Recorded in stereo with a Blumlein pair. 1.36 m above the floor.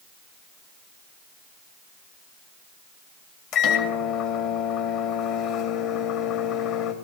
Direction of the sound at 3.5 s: 40° left.